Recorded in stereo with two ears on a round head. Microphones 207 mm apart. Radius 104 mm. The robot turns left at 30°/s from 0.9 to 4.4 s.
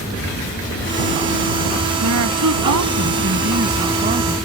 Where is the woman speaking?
80° right; by 4.3 s 150° right.